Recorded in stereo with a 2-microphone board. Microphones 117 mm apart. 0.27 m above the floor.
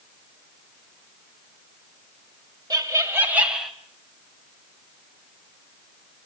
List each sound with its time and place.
2.7 s laughter: 30° right (ahead or behind), 1.7 m; by 3.7 s centre (ahead or behind), 1.3 m